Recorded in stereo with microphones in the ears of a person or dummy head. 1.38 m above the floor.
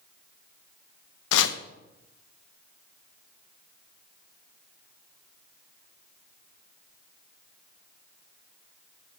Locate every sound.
1.3 s chopping: 70° left (ahead or behind), 0.9 m